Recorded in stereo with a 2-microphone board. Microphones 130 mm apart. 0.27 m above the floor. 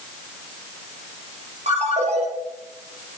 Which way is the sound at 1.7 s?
60° right (ahead or behind).